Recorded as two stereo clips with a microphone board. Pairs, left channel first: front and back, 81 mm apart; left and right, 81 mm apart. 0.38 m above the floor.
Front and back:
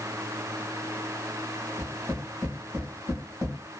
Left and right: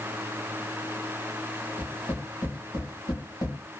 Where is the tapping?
110° left, 1.4 m.